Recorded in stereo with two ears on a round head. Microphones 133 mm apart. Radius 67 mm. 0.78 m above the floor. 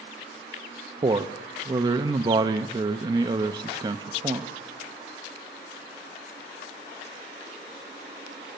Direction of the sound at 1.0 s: 30° right (ahead or behind).